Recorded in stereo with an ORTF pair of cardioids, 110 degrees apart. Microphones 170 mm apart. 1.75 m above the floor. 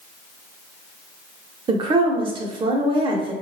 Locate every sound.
1.7 s a woman speaking: 30° right, 0.6 m